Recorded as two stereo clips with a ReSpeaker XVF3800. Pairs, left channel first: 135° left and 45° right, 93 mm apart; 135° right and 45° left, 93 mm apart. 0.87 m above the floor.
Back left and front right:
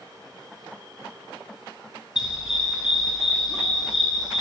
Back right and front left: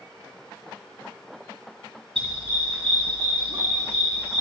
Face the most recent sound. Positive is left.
turn(degrees=40)